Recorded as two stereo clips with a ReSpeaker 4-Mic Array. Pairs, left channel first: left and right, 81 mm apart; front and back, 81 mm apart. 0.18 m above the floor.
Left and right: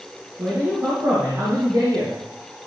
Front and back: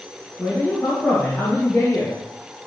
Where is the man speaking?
65° right, 3.5 m.